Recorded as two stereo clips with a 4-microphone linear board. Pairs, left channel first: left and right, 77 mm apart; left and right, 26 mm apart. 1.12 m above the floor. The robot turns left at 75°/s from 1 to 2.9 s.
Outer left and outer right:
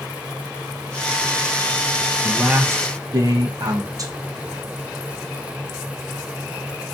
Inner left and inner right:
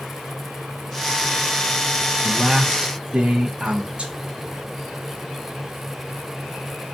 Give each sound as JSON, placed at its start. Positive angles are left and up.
{"t": 2.2, "sound": "a man speaking", "azimuth_deg": -5, "distance_m": 0.6}